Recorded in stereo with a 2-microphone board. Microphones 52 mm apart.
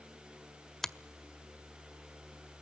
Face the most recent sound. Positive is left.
turn(degrees=5)  # may be behind; listen again after turning